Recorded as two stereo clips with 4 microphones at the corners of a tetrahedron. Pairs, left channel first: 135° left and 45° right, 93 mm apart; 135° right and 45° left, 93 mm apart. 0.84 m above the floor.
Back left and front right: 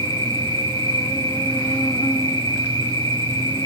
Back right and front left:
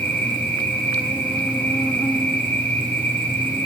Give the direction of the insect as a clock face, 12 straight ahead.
7 o'clock.